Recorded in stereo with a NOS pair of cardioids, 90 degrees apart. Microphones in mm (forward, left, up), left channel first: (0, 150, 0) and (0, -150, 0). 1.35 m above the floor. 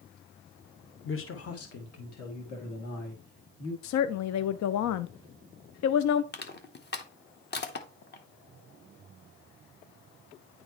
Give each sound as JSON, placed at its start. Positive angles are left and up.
{"t": 1.1, "sound": "a man speaking", "azimuth_deg": 40, "distance_m": 1.1}
{"t": 3.8, "sound": "a woman speaking", "azimuth_deg": 70, "distance_m": 0.5}
{"t": 6.3, "sound": "crushing", "azimuth_deg": 35, "distance_m": 1.1}